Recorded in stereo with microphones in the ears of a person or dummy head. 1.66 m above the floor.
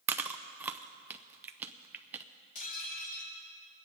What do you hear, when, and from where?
0.1 s chewing: 5° right (ahead or behind), 0.6 m
2.5 s dishes clattering: 50° left (ahead or behind), 2.5 m